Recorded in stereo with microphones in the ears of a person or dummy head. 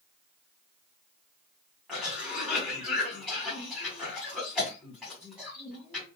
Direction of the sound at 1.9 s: 5° left (ahead or behind).